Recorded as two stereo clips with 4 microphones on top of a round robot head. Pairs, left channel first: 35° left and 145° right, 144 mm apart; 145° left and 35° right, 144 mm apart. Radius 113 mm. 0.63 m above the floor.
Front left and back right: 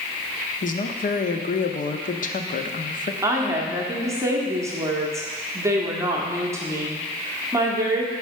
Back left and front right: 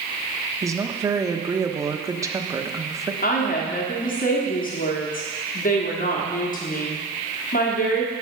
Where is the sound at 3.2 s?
150° left, 1.5 m.